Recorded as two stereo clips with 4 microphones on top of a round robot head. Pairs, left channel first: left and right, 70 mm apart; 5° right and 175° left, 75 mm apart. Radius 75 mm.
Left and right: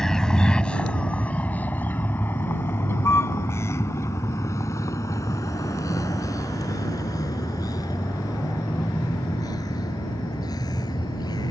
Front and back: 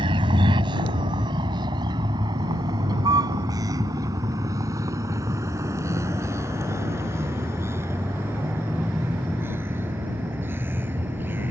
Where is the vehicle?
170° left; by 11.5 s 115° left.